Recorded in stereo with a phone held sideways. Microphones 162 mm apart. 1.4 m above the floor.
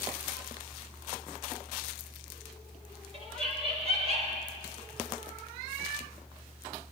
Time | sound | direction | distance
3.1 | laughter | 40° right (ahead or behind) | 5 m